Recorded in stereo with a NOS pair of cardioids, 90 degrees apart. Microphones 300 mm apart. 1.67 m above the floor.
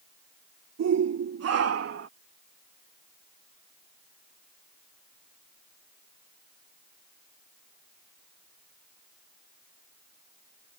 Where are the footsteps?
No footsteps in this recording.